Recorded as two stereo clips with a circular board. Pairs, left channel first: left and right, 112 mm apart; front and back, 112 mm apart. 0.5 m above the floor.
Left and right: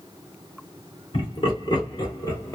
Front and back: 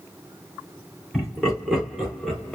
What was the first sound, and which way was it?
Laughter, 95° left.